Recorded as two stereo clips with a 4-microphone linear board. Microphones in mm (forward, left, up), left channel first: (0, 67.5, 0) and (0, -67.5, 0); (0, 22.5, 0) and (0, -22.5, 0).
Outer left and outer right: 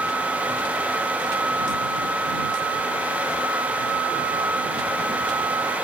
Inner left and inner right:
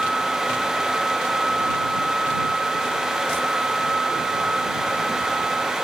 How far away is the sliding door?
No sliding door in this recording.